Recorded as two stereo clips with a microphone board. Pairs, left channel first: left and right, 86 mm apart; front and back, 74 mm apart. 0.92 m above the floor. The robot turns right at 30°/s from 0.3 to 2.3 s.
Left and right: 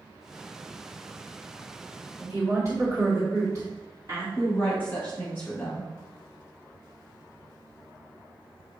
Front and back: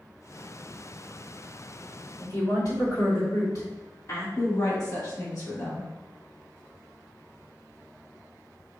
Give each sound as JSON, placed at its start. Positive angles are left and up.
{"t": 2.2, "sound": "a woman speaking", "azimuth_deg": -45, "distance_m": 1.8}
{"t": 4.4, "sound": "a woman speaking", "azimuth_deg": 30, "distance_m": 1.4}